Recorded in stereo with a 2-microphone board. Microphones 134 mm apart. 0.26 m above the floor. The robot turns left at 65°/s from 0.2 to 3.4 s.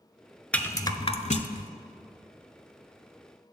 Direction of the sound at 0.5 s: 10° left (ahead or behind).